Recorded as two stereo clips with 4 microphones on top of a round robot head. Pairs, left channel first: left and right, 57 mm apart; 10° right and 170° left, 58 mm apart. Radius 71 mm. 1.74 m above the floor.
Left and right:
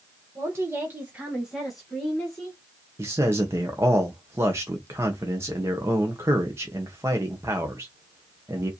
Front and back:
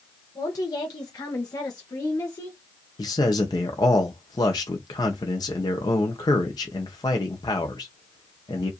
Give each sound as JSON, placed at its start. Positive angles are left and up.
{"t": 0.3, "sound": "a woman speaking", "azimuth_deg": -40, "distance_m": 1.8}
{"t": 3.0, "sound": "a man speaking", "azimuth_deg": -35, "distance_m": 0.9}